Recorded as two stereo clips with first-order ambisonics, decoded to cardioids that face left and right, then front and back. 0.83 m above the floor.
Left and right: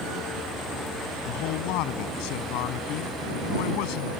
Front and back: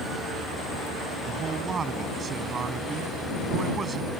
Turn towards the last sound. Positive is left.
turn(degrees=110)